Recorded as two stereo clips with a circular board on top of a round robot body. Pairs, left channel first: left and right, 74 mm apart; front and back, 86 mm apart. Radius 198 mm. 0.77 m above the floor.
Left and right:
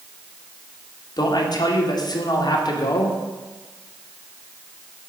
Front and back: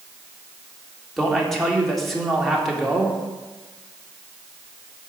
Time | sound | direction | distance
1.2 | a man speaking | 90° left | 2 m